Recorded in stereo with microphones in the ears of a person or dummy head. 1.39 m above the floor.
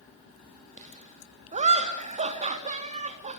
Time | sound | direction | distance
0.8 | laughter | 35° right (ahead or behind) | 3.5 m